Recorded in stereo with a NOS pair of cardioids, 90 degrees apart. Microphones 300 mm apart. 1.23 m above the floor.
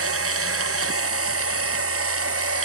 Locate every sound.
0.0 s a machine running: 45° right, 0.8 m